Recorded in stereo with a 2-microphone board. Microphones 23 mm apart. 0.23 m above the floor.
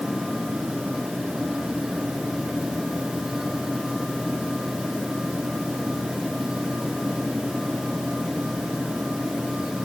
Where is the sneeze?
No sneeze in this recording.